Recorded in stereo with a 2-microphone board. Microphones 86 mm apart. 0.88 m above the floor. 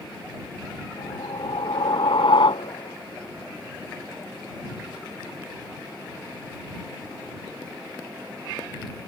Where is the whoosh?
80° left.